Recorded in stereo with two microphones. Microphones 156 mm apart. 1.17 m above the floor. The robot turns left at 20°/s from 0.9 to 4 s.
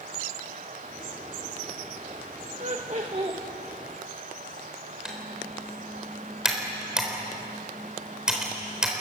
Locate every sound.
2.6 s laughter: 50° right (ahead or behind), 1.3 m; by 3.4 s 35° right (ahead or behind), 1.3 m
5.0 s typing on a keyboard: 5° right (ahead or behind), 4 m